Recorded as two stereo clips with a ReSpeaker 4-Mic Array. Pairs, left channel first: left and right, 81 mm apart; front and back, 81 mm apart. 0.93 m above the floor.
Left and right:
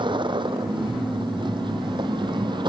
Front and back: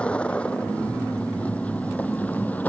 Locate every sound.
0.0 s a vehicle: 75° right; by 2.7 s 70° right